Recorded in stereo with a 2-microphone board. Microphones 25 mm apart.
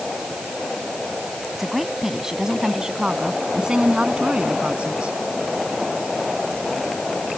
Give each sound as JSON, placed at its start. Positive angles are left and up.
{"t": 1.5, "sound": "a woman speaking", "side_deg": -10}